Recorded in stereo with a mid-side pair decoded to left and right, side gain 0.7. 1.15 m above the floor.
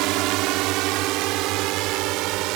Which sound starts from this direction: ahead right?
A drone, at 0.0 s.